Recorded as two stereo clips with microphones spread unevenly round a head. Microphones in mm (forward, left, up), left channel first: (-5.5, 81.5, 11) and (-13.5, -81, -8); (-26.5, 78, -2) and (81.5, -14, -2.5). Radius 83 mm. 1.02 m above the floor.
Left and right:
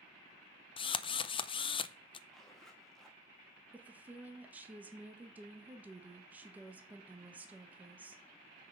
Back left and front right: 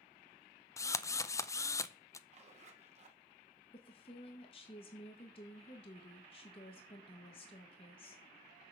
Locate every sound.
0.8 s a drill: 105° left, 0.5 m
2.3 s a zipper: 5° right, 1.8 m
3.7 s a woman speaking: 170° right, 1.4 m